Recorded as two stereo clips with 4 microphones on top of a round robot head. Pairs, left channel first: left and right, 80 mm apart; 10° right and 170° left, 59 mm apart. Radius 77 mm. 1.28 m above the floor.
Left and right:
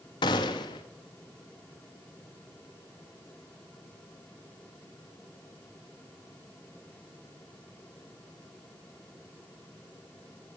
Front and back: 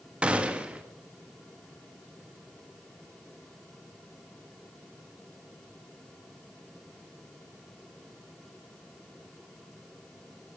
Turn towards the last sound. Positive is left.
turn(degrees=105)